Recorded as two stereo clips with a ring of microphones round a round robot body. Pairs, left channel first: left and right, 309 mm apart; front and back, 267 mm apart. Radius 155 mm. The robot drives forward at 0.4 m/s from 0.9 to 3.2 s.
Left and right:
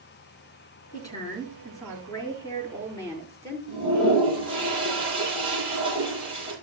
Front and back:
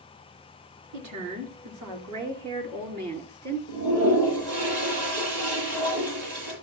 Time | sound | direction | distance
0.9 | a woman speaking | 170° left | 5 m
3.7 | a toilet flushing | 165° right | 7.5 m